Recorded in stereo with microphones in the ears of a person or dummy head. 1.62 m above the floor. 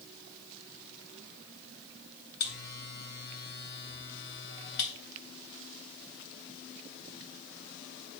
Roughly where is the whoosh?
No whoosh in this recording.